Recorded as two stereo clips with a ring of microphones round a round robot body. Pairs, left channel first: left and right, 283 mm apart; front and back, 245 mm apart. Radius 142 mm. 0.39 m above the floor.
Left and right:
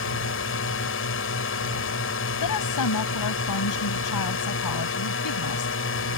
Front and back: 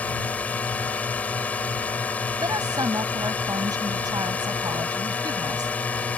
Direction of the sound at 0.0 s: 80° left.